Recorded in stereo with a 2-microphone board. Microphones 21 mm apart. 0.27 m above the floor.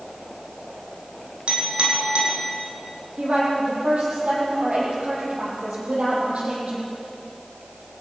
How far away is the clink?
About 6 m.